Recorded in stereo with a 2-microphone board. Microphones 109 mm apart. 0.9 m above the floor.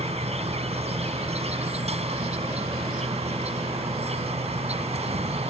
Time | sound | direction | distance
0.0 | an insect | 75° right (ahead or behind) | ?